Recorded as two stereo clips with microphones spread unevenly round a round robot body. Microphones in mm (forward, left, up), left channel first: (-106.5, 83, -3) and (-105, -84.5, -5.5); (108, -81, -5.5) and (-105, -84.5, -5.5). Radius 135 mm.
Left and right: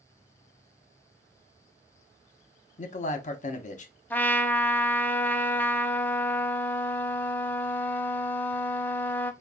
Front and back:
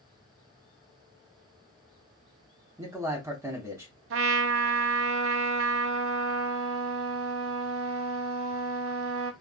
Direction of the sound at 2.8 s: 105° left.